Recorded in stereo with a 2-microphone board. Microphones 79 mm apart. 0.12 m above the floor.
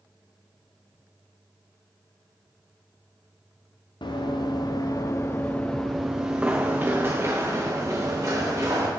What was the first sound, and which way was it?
Running footsteps, 80° left.